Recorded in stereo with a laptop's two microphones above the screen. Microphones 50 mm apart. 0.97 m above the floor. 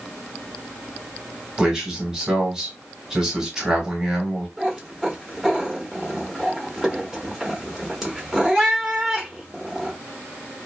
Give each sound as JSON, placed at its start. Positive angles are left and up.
{"t": 1.6, "sound": "a man speaking", "side_deg": -15, "distance_m": 1.2}
{"t": 4.6, "sound": "a cat meowing", "side_deg": -10, "distance_m": 1.1}